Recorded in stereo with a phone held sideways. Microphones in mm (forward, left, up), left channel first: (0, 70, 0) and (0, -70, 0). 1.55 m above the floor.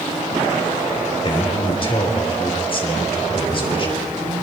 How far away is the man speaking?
About 4.5 m.